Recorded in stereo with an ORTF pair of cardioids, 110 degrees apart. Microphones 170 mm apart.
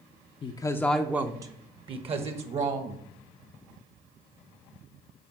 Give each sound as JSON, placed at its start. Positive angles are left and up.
{"t": 0.4, "sound": "a woman speaking", "azimuth_deg": 35, "distance_m": 0.6}